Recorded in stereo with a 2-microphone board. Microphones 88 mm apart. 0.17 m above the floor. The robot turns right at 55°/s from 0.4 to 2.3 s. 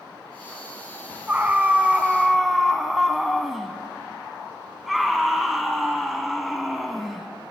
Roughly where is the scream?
Centre.